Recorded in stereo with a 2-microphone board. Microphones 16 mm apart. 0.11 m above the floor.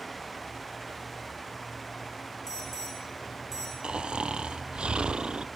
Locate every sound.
2.5 s an alarm: 15° left (ahead or behind), 9.5 m
3.8 s snoring: 70° right (ahead or behind), 0.8 m